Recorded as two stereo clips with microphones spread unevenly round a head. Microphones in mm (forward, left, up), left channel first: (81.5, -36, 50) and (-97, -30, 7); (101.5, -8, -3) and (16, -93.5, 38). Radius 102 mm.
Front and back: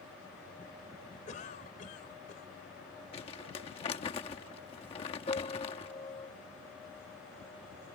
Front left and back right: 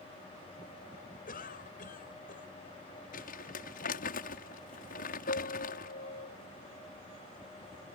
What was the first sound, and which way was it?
A cough, 55° left.